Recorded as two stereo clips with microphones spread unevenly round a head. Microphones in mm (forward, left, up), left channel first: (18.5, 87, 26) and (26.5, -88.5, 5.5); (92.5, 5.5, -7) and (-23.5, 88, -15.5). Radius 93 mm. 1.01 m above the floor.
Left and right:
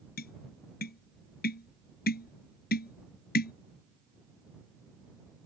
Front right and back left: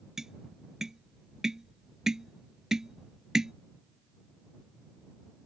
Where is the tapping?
60° left.